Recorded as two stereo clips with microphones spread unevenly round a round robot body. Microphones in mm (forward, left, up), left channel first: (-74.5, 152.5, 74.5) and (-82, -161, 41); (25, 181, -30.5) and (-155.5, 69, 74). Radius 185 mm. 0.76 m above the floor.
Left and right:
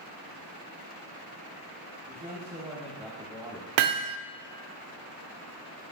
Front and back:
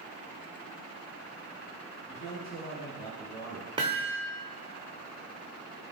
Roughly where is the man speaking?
Ahead right.